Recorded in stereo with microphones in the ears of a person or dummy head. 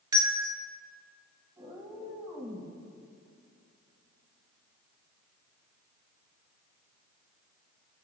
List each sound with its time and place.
0.1 s a bell: 20° right (ahead or behind), 0.7 m
1.6 s a cat meowing: 20° right (ahead or behind), 3 m